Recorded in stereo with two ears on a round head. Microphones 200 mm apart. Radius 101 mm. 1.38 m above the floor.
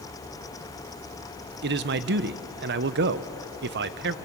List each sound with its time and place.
1.6 s a man speaking: 50° right (ahead or behind), 0.8 m